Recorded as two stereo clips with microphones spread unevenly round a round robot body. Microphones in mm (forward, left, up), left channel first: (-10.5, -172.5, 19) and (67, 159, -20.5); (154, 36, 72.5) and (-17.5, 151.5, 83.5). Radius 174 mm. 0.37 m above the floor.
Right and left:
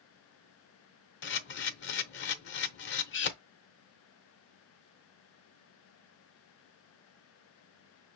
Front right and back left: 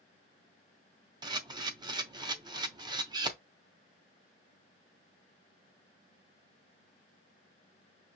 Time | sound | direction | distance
1.2 | a camera shutter | 150° right | 0.7 m